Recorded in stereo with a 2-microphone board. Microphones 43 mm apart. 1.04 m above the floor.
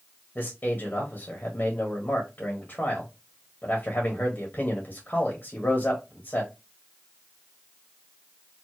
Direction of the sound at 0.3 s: 40° left (ahead or behind).